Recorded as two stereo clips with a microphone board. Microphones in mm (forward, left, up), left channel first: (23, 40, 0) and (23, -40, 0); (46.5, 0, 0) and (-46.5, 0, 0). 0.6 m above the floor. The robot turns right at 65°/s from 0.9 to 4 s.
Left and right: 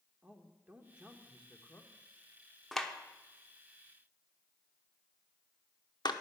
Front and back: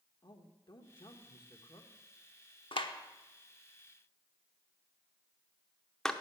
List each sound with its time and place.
0.2 s a man speaking: 20° right, 1.2 m; by 1.9 s 45° left, 1.2 m
2.7 s a clap: straight ahead, 0.8 m; by 6.1 s 85° left, 0.8 m